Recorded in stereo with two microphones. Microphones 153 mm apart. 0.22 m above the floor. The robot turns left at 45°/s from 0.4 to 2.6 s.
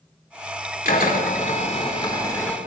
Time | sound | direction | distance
0.8 | a drill | 85° left | 4 m